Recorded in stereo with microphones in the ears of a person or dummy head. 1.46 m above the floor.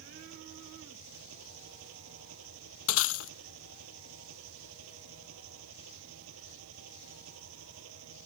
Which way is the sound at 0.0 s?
75° right (ahead or behind).